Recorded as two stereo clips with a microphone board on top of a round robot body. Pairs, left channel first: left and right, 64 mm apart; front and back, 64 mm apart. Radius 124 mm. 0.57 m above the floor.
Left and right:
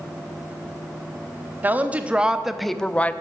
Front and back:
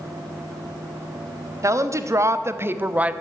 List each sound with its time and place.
1.6 s a woman speaking: 150° right, 1.4 m; by 3.1 s 125° left, 0.8 m